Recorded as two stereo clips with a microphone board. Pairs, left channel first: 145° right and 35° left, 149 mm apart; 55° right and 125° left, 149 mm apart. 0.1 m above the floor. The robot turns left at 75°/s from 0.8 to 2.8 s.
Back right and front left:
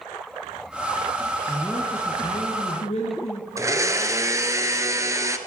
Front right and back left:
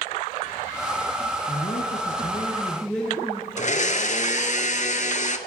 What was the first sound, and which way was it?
A man speaking, 40° right.